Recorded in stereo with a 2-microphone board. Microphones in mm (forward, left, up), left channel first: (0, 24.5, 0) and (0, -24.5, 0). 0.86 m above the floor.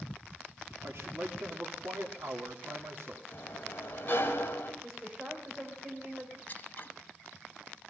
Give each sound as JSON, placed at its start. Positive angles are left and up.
{"t": 0.8, "sound": "a man speaking", "side_deg": -70, "distance_m": 2.0}
{"t": 3.3, "sound": "a sliding door", "side_deg": 40, "distance_m": 3.5}
{"t": 4.8, "sound": "a woman speaking", "side_deg": -25, "distance_m": 3.5}
{"t": 6.5, "sound": "scissors", "side_deg": 35, "distance_m": 1.6}